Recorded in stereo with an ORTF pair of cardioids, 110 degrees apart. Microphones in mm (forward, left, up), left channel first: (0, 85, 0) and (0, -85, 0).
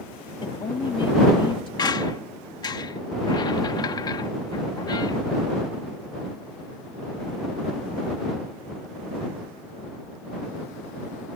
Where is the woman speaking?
30° left.